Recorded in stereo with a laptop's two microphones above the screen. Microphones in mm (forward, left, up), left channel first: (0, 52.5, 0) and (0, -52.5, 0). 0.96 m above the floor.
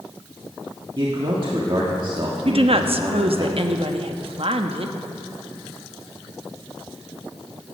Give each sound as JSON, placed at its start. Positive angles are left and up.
{"t": 1.0, "sound": "a man speaking", "side_deg": -50, "distance_m": 1.7}
{"t": 2.5, "sound": "a woman speaking", "side_deg": -60, "distance_m": 1.0}